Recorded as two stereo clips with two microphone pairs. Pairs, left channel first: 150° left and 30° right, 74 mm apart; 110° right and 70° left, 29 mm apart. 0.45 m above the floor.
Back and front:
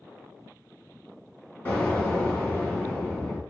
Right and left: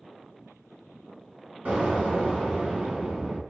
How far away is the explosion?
About 1.3 m.